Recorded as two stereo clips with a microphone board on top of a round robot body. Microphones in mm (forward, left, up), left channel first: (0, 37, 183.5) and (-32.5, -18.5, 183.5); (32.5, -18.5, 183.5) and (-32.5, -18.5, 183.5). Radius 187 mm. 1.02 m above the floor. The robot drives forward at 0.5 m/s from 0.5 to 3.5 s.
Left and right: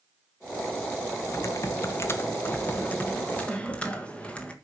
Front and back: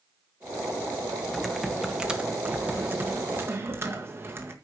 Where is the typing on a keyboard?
85° left, 1.4 m; by 4.5 s 130° left, 1.7 m.